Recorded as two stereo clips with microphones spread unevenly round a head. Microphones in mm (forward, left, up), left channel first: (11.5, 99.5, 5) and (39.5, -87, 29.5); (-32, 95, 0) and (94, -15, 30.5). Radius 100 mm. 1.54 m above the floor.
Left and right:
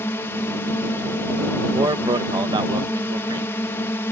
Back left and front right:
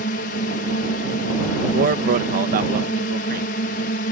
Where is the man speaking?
15° right.